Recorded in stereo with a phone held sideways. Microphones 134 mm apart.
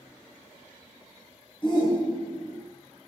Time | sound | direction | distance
1.6 | a shout | 35° left (ahead or behind) | 1.0 m